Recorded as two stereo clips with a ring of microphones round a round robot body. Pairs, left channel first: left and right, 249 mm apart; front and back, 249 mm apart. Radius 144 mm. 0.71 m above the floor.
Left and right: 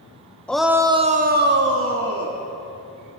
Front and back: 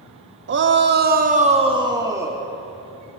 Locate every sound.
0.5 s a shout: 175° left, 1.2 m; by 2.4 s 100° right, 2 m